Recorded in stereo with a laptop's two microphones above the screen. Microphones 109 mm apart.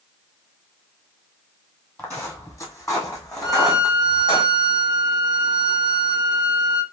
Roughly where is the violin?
Left.